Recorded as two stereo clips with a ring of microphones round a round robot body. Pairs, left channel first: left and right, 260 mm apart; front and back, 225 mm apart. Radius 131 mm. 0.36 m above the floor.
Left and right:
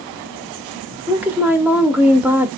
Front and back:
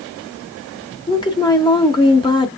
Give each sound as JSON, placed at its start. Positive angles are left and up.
{"t": 1.1, "sound": "a woman speaking", "azimuth_deg": -20, "distance_m": 0.8}